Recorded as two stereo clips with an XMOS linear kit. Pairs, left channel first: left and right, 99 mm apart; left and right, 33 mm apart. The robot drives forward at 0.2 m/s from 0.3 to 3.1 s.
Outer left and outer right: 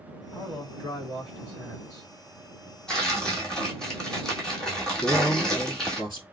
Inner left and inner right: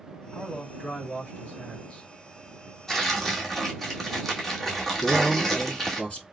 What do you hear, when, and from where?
0.3 s a man speaking: 30° left (ahead or behind), 1.9 m; by 2.1 s 25° left (ahead or behind), 2.0 m
2.9 s tearing paper: 10° left (ahead or behind), 1.3 m; by 6.0 s 5° left (ahead or behind), 1.3 m
5.0 s a man speaking: 35° left (ahead or behind), 1.9 m